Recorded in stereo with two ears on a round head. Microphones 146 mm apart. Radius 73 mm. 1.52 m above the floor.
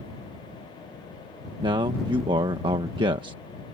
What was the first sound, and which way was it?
A man speaking, 30° right (ahead or behind).